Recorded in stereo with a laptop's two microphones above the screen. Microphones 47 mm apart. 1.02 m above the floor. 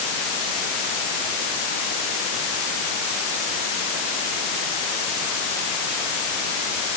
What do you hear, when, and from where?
Only background noise.